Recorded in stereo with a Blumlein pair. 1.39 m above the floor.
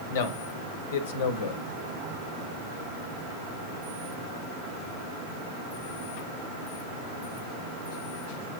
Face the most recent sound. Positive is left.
turn(degrees=55)